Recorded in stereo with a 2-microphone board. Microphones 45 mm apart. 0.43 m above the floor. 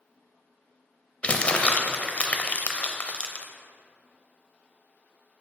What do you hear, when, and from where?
1.2 s crumpling: 30° left (ahead or behind), 0.5 m